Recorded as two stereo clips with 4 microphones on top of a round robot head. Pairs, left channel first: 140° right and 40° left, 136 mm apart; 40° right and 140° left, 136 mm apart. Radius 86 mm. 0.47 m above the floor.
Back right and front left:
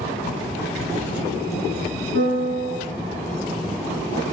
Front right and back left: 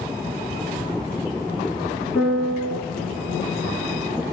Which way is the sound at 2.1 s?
55° left.